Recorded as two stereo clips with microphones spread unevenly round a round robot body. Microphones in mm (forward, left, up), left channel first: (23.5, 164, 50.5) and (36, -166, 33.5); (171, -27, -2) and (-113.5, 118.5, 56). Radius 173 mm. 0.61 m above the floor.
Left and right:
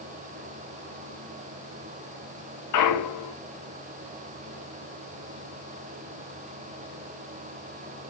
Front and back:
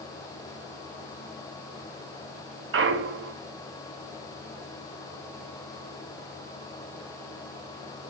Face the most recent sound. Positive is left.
turn(degrees=100)